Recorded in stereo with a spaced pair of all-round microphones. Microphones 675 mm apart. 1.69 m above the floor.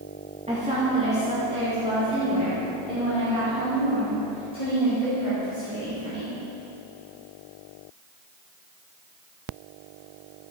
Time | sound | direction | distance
0.5 | a woman speaking | 10° right (ahead or behind) | 2 m